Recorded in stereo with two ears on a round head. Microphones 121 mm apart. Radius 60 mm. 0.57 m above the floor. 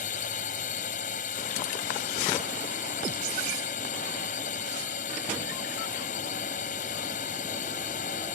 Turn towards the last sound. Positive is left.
turn(degrees=60)  # may be behind; listen again after turning